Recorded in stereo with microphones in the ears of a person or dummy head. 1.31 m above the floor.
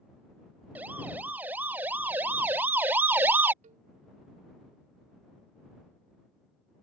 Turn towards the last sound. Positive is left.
turn(degrees=-40)  # may be behind; listen again after turning